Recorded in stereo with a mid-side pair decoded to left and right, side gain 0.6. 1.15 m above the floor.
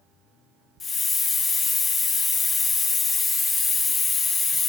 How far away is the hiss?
About 0.6 m.